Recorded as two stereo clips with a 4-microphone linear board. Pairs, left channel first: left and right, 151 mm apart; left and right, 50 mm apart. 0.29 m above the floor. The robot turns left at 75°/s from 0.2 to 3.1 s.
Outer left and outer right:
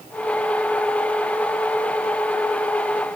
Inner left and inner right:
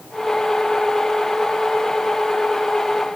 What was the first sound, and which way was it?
Only background noise.